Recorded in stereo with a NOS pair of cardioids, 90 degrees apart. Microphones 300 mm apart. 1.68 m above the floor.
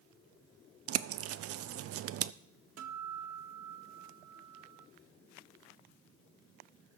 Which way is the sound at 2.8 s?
60° right.